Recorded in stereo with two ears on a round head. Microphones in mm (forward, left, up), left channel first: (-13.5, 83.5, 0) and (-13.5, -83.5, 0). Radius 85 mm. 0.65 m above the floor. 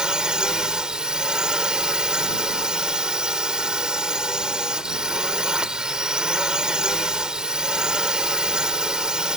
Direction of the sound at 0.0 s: 5° right (ahead or behind).